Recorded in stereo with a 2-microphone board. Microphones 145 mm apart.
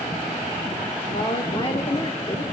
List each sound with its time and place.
1.1 s a woman speaking: 35° left (ahead or behind), 1.3 m